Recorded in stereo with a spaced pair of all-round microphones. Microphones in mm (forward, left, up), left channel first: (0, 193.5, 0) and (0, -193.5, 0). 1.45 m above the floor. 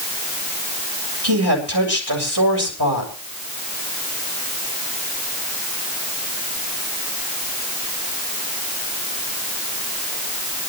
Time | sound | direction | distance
1.2 | a woman speaking | 85° right | 7.5 m